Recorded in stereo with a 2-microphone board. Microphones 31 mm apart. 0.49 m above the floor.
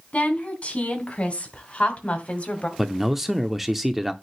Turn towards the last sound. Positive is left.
turn(degrees=-5)  # may be behind; listen again after turning